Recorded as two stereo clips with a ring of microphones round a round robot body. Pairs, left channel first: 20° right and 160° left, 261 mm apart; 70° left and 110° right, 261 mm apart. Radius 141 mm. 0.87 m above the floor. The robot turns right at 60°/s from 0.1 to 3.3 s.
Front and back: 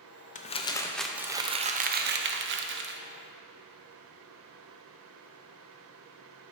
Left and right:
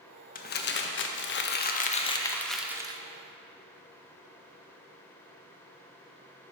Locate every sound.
0.3 s crumpling: 25° left, 0.7 m; by 3.0 s 175° right, 0.7 m